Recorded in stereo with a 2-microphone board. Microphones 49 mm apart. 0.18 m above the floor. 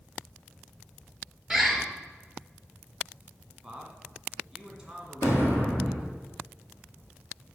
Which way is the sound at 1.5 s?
10° right (ahead or behind).